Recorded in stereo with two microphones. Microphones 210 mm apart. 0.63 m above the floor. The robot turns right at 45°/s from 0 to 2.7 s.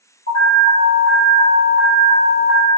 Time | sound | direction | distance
0.3 | an alarm | 70° left | 1.6 m